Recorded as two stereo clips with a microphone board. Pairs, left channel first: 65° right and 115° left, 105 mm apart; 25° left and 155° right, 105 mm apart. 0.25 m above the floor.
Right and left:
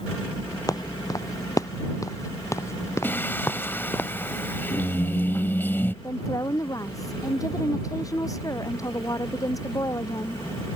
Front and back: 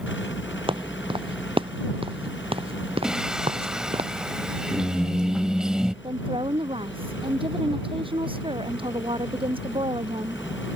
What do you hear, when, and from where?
0.7 s footsteps: 120° right; by 4.0 s 140° right
3.0 s singing: 85° right
6.0 s a woman speaking: 125° right